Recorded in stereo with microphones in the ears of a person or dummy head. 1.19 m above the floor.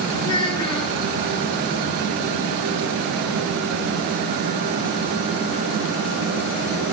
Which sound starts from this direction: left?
A child speaking, at 0.2 s.